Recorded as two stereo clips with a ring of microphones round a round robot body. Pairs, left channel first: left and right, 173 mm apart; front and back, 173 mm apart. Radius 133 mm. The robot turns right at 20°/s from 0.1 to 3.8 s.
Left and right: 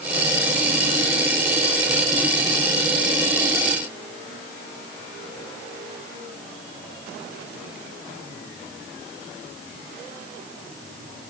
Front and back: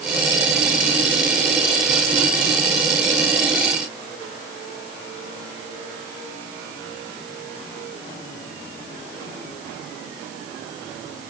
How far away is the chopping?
I don't hear chopping.